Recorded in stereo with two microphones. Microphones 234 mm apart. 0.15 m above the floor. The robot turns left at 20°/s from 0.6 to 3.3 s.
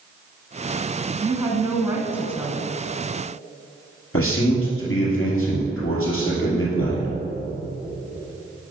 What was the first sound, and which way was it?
A woman speaking, 15° right (ahead or behind).